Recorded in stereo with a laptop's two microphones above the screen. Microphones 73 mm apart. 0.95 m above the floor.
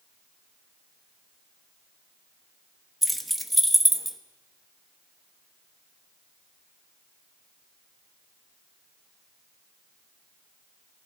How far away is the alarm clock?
No alarm clock in this recording.